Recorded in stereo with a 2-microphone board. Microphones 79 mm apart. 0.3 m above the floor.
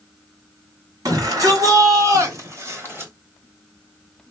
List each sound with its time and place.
1.1 s a shout: 55° right (ahead or behind), 2.5 m; by 3.1 s 30° right (ahead or behind), 1.3 m